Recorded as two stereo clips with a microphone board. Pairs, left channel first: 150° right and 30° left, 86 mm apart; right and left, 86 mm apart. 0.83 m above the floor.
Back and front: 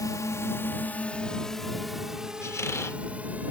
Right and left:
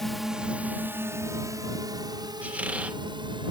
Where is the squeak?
160° left.